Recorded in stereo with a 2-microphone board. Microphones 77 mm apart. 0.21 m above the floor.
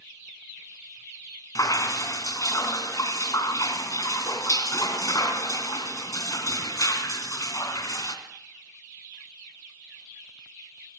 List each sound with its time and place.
1.6 s dripping: 50° left (ahead or behind), 2.5 m